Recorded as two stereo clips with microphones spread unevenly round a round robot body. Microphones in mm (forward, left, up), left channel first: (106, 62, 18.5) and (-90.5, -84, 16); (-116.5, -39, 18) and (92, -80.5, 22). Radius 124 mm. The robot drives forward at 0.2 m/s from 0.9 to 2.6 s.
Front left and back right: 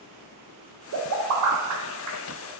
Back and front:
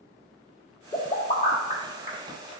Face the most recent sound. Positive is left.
turn(degrees=-140)